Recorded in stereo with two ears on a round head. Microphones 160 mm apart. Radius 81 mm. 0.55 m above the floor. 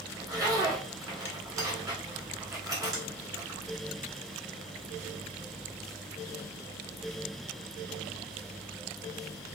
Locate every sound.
0.1 s a zipper: 20° right (ahead or behind), 1.3 m